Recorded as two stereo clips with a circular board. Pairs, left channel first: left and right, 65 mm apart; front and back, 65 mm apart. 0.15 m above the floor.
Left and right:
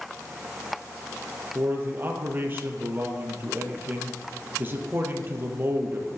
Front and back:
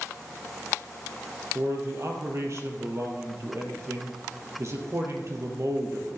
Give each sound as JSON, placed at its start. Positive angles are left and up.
{"t": 1.6, "sound": "a man speaking", "azimuth_deg": -145, "distance_m": 3.5}